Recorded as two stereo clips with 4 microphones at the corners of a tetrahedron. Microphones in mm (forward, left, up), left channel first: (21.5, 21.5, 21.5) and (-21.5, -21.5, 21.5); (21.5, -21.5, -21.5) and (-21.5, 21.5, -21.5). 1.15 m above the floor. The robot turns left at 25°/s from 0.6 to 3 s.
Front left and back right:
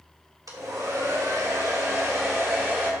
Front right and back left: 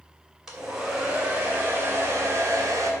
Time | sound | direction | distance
0.5 | a hair dryer | 140° right | 2.5 m